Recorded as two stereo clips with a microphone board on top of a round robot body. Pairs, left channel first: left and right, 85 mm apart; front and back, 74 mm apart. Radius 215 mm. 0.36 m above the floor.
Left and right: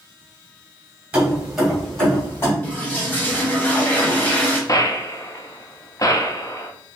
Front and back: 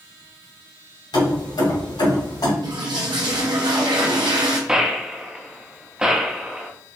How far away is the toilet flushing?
About 0.8 m.